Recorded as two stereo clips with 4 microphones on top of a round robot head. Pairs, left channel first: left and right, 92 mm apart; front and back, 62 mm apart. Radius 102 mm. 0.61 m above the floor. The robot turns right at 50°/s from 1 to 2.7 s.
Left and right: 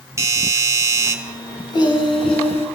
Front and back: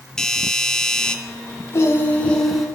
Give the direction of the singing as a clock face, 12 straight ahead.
10 o'clock.